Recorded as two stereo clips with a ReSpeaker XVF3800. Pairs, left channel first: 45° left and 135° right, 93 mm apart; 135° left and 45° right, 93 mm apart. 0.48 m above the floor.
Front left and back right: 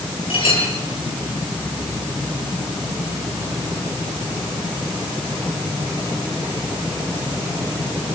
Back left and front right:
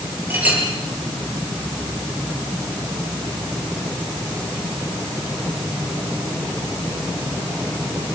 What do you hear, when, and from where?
0.3 s a clink: 25° left, 8 m